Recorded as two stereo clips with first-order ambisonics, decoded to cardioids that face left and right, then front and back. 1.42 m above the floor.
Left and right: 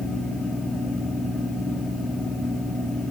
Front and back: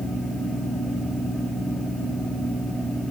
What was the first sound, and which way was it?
Only background noise.